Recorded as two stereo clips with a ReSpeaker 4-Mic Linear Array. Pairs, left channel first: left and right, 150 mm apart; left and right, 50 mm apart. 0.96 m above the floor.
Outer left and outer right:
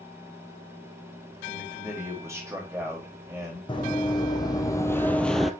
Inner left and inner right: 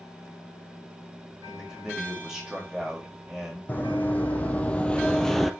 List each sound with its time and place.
1.4 s a man speaking: 15° right (ahead or behind), 4.5 m
3.7 s running footsteps: 30° left (ahead or behind), 1.9 m; by 5.5 s centre (ahead or behind), 0.9 m